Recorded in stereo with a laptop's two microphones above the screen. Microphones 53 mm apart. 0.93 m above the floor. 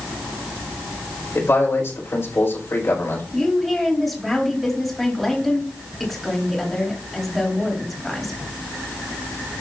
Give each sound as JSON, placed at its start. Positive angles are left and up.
{"t": 1.4, "sound": "a man speaking", "side_deg": 50, "distance_m": 5.5}
{"t": 3.3, "sound": "a woman speaking", "side_deg": 5, "distance_m": 3.0}